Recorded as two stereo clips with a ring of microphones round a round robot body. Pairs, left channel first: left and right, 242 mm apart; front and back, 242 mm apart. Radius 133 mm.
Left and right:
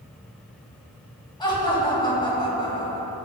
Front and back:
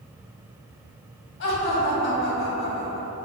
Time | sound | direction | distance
1.4 | laughter | 20° left | 1.8 m